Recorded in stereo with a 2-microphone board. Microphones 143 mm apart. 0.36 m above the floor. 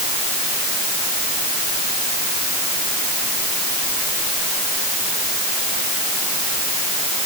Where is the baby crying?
No baby crying in this recording.